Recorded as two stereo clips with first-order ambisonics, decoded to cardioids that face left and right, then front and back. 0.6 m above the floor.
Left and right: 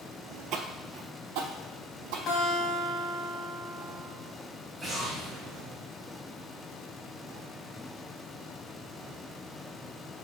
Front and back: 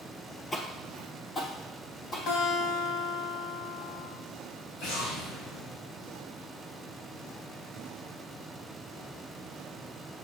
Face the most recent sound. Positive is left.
turn(degrees=-10)